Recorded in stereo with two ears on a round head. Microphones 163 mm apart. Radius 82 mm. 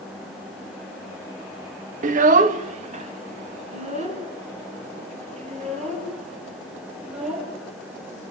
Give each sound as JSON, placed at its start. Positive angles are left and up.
{"t": 2.0, "sound": "a child speaking", "side_deg": -40, "distance_m": 0.5}